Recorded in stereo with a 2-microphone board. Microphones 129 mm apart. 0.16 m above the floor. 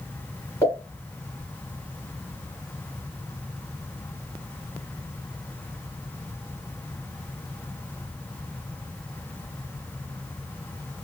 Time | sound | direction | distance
0.6 | a pop | 20° left (ahead or behind) | 1.7 m